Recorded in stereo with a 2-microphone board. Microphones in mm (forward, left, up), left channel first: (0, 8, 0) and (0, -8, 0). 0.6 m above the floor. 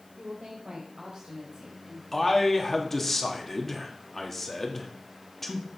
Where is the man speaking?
15° left (ahead or behind), 1.3 m.